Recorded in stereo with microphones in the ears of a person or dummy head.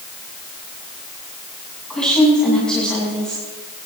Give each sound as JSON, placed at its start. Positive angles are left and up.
{"t": 1.9, "sound": "a woman speaking", "side_deg": 0, "distance_m": 8.0}